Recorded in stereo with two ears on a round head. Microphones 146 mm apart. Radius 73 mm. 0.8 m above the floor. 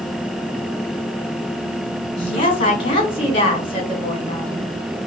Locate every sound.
2.2 s a woman speaking: 35° left (ahead or behind), 1.4 m